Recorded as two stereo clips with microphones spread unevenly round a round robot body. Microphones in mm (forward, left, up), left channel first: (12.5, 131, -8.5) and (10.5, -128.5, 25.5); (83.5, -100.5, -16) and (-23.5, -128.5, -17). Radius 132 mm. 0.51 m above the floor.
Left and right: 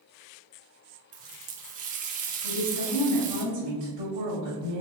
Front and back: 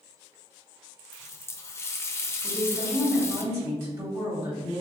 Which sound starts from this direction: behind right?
A woman speaking, at 2.4 s.